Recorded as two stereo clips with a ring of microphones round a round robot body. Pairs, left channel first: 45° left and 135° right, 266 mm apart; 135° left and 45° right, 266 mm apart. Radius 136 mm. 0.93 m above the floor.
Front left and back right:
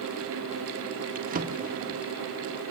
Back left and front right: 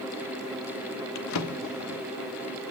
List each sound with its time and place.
1.1 s a drawer: 165° left, 1.2 m